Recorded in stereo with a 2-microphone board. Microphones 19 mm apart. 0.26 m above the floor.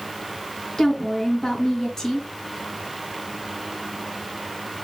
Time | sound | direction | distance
0.8 | a woman speaking | 30° left (ahead or behind) | 2.5 m